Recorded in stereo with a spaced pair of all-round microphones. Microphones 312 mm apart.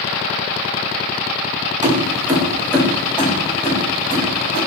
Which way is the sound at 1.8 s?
25° right (ahead or behind).